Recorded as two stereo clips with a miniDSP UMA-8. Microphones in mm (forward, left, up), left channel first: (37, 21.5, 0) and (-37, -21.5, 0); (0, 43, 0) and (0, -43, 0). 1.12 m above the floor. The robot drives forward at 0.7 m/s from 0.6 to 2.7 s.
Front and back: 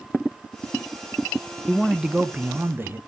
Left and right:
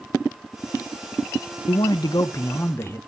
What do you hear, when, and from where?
1.7 s a man speaking: 110° left, 0.6 m; by 3.0 s 150° left, 1.1 m